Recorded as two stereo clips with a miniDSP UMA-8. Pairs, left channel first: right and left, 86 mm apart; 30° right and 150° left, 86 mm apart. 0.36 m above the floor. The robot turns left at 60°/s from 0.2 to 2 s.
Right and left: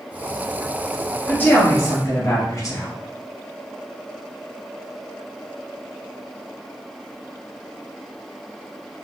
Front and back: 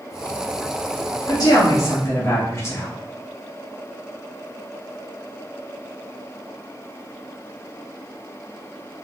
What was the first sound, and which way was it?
A woman speaking, 25° right.